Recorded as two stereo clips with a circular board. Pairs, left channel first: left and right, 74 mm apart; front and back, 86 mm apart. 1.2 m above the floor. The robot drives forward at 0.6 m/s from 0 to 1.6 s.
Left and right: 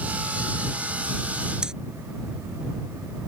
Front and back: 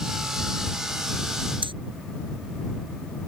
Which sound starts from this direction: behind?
Breathing, at 1.6 s.